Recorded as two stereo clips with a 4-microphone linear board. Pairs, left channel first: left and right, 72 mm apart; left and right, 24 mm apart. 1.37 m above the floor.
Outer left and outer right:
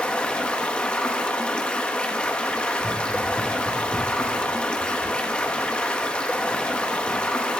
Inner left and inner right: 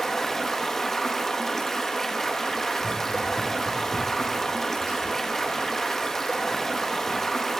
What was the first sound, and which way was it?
Running water, 15° left (ahead or behind).